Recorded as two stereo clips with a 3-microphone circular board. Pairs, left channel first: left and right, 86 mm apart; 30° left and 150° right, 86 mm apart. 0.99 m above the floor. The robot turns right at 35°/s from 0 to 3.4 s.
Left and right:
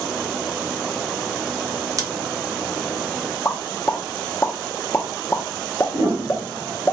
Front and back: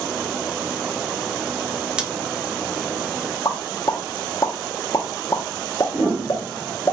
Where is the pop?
45° left, 0.6 m.